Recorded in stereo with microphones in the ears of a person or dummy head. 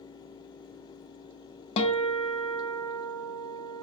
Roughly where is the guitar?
Left.